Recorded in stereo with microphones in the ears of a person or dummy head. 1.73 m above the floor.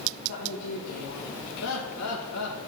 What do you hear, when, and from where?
0.3 s a woman speaking: 65° left (ahead or behind), 1.4 m
1.6 s laughter: 75° left (ahead or behind), 1.9 m